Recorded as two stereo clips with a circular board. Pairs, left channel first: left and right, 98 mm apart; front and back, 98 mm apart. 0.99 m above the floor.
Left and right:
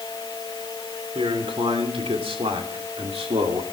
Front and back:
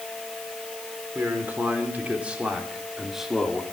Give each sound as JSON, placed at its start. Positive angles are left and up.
{"t": 1.1, "sound": "a man speaking", "azimuth_deg": -110, "distance_m": 3.0}